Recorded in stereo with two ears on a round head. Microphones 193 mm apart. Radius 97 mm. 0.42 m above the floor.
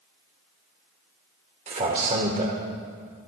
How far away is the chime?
I don't hear a chime.